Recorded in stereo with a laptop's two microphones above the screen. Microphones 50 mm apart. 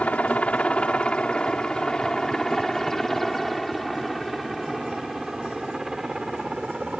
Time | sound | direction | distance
0.0 | a helicopter | 30° left (ahead or behind) | ?